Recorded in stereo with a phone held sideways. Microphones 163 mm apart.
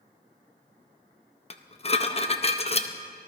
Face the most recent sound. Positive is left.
turn(degrees=40)  # may be behind; listen again after turning